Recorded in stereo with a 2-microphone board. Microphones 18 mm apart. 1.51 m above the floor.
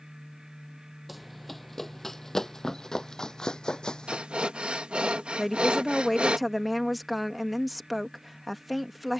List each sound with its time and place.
1.1 s running footsteps: centre (ahead or behind); by 4.2 s 45° left (ahead or behind)
4.1 s breathing: 80° right
5.4 s a woman speaking: centre (ahead or behind)